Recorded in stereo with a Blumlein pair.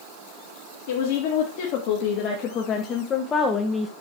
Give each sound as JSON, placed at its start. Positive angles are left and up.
{"t": 0.9, "sound": "a woman speaking", "azimuth_deg": 50, "distance_m": 3.0}